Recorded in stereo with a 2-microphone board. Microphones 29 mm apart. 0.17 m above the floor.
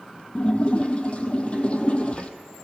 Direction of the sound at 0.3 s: 40° left (ahead or behind).